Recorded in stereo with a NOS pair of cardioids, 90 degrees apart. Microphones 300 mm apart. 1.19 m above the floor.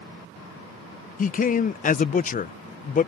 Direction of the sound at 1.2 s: 30° left.